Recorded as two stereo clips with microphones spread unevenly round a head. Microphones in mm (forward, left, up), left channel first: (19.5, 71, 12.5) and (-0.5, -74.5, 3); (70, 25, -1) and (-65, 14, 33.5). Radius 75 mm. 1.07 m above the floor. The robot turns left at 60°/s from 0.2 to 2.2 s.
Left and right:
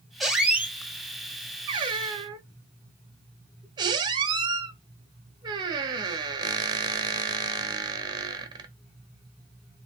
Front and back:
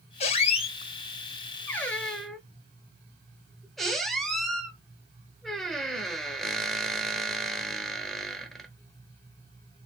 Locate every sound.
0.2 s a squeak: straight ahead, 0.7 m; by 8.7 s 120° right, 0.7 m